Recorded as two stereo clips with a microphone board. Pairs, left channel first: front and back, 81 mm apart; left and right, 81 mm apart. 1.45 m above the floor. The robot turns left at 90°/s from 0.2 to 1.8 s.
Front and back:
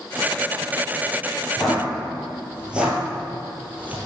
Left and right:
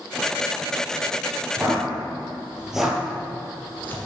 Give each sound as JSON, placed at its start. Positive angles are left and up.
{"t": 1.6, "sound": "footsteps", "azimuth_deg": -75, "distance_m": 1.7}